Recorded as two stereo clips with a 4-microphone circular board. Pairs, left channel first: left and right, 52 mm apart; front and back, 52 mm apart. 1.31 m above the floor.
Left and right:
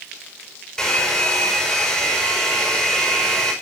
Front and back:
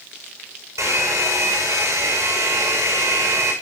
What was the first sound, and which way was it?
A hair dryer, 170° left.